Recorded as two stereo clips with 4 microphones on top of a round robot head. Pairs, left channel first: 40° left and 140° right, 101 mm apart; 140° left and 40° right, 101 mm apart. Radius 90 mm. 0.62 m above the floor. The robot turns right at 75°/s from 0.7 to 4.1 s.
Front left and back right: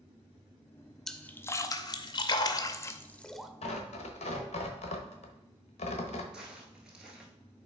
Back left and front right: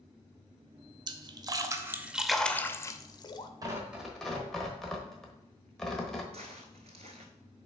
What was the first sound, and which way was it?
A splash, 45° right.